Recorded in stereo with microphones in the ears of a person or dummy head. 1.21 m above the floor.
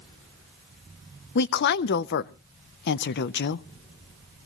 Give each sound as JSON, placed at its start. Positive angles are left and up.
{"t": 1.4, "sound": "a woman speaking", "side_deg": 55, "distance_m": 0.5}